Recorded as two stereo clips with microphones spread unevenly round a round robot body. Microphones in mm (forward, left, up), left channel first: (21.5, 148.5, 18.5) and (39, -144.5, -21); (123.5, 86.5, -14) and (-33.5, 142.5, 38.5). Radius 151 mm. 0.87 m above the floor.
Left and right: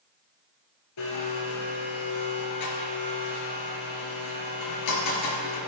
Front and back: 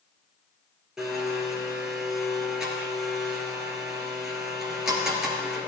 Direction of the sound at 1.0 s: 80° left.